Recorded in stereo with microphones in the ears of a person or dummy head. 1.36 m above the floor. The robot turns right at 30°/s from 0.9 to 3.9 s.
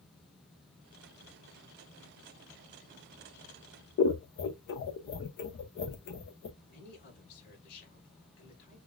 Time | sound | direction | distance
4.0 | scissors | 55° left (ahead or behind) | 0.7 m
6.6 | a man speaking | 55° left (ahead or behind) | 3.5 m